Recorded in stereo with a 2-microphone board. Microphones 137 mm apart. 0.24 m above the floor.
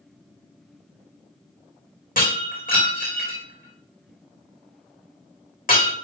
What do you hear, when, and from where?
2.2 s breaking glass: 75° left (ahead or behind), 3.5 m